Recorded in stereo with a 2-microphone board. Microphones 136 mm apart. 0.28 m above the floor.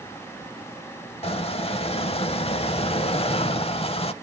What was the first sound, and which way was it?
A squeak, 45° left (ahead or behind).